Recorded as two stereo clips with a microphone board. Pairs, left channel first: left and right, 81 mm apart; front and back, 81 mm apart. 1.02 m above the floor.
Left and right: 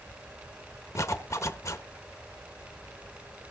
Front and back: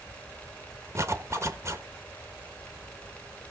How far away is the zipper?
About 1.2 m.